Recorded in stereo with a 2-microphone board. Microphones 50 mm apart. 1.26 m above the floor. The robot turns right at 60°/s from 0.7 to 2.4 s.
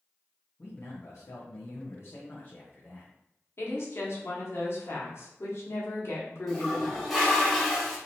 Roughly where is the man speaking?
Ahead left.